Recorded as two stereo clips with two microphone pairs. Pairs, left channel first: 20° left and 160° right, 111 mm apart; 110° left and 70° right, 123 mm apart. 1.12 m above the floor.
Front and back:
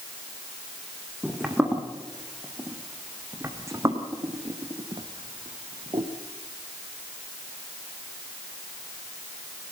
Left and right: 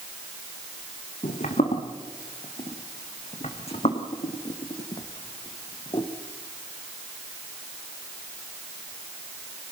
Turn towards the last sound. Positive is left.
turn(degrees=165)